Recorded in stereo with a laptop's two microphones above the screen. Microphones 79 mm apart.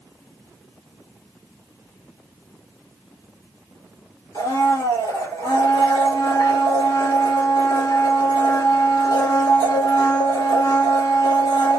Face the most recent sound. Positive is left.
turn(degrees=75)  # may be behind; listen again after turning